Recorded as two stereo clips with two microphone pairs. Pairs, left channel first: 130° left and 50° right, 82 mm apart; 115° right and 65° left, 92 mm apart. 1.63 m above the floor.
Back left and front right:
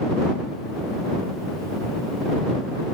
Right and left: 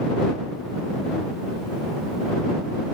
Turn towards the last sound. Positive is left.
No sound to turn to.